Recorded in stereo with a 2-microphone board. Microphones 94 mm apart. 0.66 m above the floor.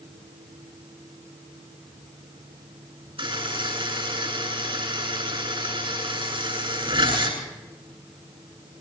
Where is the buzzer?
70° right (ahead or behind), 9 m.